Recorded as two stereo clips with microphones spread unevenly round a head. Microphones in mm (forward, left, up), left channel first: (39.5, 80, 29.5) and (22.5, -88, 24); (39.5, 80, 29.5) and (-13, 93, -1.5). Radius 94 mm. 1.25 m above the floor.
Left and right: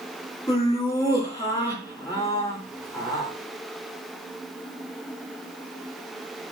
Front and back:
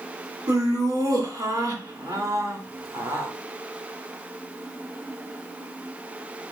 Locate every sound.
0.5 s laughter: 155° left, 3 m